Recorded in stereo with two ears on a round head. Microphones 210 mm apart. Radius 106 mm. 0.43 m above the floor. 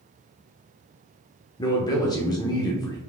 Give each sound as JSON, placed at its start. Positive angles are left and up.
{"t": 1.6, "sound": "a man speaking", "side_deg": 20, "distance_m": 0.7}